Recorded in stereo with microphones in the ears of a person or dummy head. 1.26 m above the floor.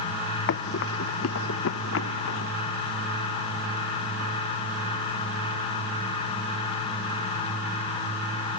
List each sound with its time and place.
0.5 s running footsteps: 55° left (ahead or behind); by 2.5 s 65° left (ahead or behind)